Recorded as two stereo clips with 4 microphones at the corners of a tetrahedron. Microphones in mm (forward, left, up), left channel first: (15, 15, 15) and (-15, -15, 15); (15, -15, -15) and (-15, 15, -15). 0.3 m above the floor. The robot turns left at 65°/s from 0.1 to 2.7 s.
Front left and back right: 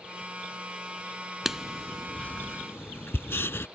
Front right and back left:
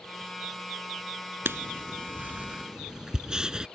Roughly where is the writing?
Behind left.